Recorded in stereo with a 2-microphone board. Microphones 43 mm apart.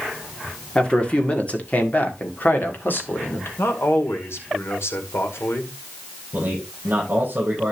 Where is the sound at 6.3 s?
45° right (ahead or behind), 7 m.